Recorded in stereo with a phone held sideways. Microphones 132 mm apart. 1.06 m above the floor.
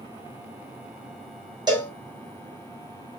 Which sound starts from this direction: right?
A cowbell, at 1.7 s.